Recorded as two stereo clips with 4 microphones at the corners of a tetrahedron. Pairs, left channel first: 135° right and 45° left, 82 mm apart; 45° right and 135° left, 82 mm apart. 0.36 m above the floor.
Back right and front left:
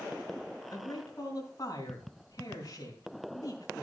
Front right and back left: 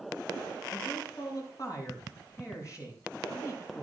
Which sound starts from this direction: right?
A man speaking, at 0.7 s.